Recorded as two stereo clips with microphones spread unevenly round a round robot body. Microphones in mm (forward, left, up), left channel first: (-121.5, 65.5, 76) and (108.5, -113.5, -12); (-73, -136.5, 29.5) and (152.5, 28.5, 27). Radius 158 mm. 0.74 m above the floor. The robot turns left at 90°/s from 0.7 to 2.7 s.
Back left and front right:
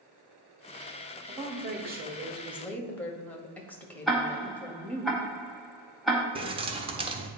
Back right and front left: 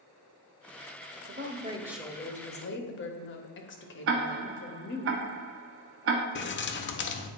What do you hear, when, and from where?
1.3 s a woman speaking: 10° left, 1.0 m; by 5.1 s 120° right, 1.0 m
4.1 s ticking: 35° left, 0.8 m
6.3 s keys jangling: 100° right, 0.6 m